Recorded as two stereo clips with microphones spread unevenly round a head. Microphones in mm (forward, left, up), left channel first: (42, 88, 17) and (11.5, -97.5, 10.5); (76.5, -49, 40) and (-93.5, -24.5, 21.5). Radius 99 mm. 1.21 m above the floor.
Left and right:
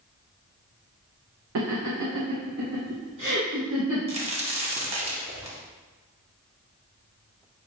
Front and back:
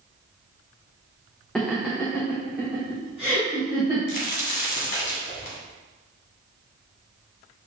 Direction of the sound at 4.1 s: 40° right.